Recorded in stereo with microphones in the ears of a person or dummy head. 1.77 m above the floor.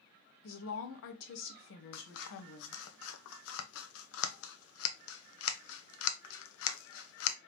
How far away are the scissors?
About 0.7 m.